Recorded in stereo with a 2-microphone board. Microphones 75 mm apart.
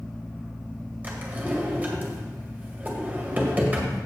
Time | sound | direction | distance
1.0 | a drawer | 25° right (ahead or behind) | 1.6 m